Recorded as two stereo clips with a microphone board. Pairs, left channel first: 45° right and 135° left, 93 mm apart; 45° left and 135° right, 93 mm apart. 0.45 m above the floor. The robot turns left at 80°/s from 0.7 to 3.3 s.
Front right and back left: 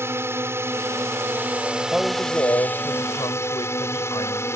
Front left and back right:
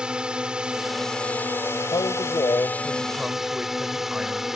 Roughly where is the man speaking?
Ahead left.